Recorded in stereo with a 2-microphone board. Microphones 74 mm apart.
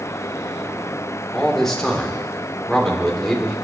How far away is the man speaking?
About 2.5 m.